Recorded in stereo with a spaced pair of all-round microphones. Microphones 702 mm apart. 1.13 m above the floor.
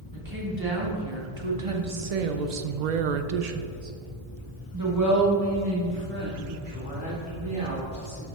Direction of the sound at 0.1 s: 25° right (ahead or behind).